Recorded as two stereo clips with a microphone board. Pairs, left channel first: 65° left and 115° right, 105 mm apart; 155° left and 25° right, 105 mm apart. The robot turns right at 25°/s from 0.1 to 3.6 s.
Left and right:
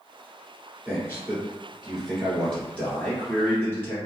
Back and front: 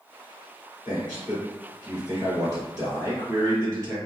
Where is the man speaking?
55° right, 1.8 m; by 4.0 s 15° left, 1.8 m.